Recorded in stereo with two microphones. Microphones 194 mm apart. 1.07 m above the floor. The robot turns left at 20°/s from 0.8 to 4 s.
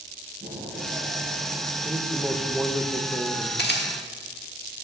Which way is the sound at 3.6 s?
60° left (ahead or behind).